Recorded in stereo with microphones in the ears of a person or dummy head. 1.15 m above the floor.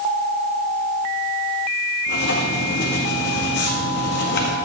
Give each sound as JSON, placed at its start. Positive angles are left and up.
{"t": 2.1, "sound": "writing", "side_deg": 60, "distance_m": 1.5}